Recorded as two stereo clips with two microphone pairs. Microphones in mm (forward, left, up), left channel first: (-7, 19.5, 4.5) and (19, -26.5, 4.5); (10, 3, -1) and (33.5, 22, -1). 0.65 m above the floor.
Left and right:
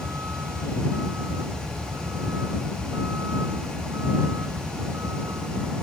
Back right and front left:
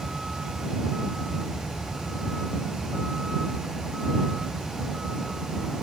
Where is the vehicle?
35° right; by 5.8 s 40° right.